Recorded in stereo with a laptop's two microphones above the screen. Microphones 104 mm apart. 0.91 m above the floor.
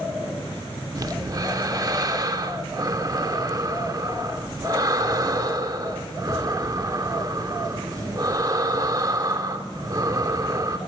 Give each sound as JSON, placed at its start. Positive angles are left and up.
{"t": 0.9, "sound": "breathing", "side_deg": -35, "distance_m": 0.6}